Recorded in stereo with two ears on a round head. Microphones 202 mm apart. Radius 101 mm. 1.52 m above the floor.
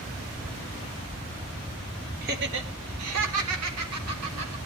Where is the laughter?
40° right (ahead or behind), 1.8 m; by 4.5 s 70° right (ahead or behind), 4 m.